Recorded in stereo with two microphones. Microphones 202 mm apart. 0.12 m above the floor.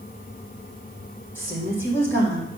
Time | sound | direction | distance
1.4 | a woman speaking | 10° left (ahead or behind) | 5 m